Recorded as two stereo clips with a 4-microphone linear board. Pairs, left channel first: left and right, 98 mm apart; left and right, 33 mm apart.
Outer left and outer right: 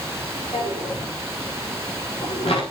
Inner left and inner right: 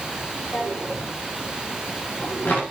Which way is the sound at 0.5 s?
85° left.